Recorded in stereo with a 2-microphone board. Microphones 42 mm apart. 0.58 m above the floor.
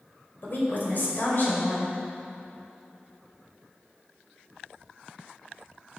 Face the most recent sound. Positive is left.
turn(degrees=50)  # may be behind; listen again after turning